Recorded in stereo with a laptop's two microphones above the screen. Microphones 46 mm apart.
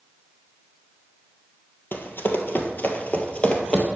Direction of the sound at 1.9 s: 55° left (ahead or behind).